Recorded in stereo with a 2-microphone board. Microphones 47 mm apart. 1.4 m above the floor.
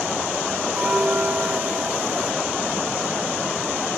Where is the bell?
30° right (ahead or behind).